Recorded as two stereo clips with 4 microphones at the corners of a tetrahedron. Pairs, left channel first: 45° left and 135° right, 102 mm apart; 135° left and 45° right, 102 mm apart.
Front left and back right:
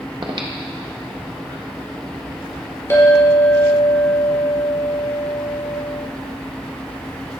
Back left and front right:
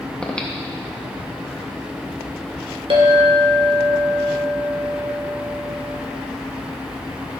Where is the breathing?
150° right, 1.0 m.